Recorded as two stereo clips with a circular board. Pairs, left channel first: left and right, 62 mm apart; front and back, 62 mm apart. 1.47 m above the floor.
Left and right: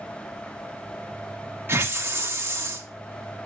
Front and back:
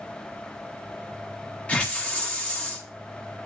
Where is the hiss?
65° right, 1.1 m.